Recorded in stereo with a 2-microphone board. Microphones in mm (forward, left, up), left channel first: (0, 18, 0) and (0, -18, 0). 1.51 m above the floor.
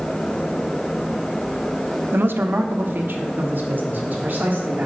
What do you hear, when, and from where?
2.1 s a man speaking: 85° right, 0.6 m; by 4.9 s 50° right (ahead or behind), 3 m